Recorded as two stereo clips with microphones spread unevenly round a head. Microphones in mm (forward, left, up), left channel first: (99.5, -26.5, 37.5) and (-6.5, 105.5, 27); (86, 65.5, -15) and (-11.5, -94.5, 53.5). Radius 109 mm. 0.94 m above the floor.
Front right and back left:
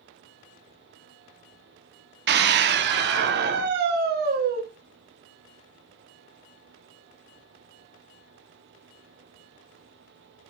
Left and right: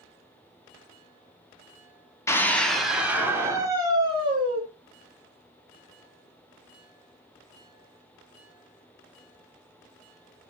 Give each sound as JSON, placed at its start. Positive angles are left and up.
{"t": 2.3, "sound": "a scream", "azimuth_deg": 130, "distance_m": 2.5}